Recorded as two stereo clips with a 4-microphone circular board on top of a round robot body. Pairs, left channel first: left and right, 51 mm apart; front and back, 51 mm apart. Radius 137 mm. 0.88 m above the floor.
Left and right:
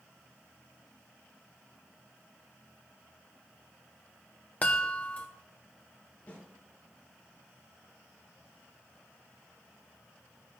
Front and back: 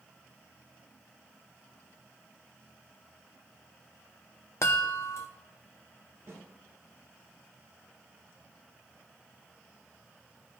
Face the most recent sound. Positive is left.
turn(degrees=155)